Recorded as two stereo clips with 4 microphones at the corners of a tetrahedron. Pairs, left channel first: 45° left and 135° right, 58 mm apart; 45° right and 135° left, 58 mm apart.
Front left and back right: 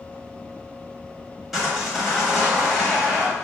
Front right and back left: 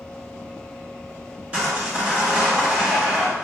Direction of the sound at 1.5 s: 140° left.